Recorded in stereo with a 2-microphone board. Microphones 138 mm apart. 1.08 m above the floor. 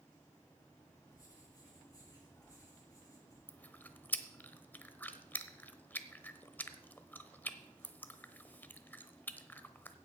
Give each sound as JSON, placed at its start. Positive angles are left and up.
{"t": 1.1, "sound": "writing", "side_deg": 25, "distance_m": 7.0}
{"t": 3.5, "sound": "chewing", "side_deg": 15, "distance_m": 0.9}